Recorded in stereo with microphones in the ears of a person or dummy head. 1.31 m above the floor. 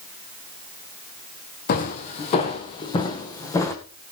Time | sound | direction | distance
1.7 | footsteps | 45° left (ahead or behind) | 2 m